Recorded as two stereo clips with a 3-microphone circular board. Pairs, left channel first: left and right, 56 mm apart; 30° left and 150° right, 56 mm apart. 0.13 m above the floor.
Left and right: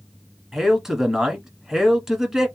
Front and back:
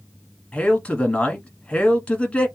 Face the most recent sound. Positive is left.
turn(degrees=-15)